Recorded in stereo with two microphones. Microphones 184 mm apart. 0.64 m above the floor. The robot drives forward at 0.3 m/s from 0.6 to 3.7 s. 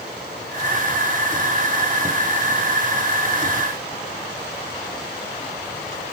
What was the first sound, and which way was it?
Only background noise.